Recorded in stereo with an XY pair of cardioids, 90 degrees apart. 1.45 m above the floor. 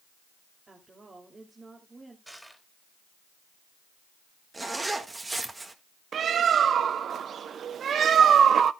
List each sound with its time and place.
0.7 s a woman speaking: 35° right, 2.5 m
2.3 s crushing: 5° right, 3.5 m
4.5 s a zipper: 25° right, 1.7 m
6.1 s a bird: 60° right, 0.6 m